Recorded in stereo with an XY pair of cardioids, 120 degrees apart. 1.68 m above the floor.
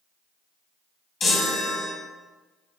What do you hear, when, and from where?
1.2 s a chime: 45° left, 2.5 m